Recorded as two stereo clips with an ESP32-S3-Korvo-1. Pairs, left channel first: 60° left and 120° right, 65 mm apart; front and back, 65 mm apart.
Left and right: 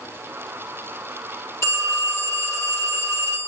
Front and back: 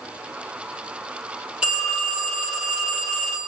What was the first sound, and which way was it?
A phone ringing, 105° left.